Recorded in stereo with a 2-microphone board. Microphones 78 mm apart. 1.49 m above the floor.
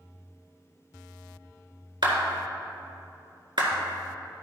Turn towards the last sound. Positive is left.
turn(degrees=-70)  # may be behind; listen again after turning